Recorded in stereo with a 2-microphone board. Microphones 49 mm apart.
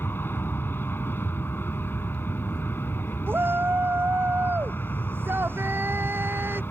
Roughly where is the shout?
Right.